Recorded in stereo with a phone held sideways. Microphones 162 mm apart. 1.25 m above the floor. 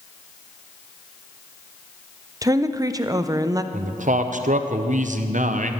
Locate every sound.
2.4 s a woman speaking: 25° right (ahead or behind), 0.6 m
3.7 s a man speaking: 55° right (ahead or behind), 0.7 m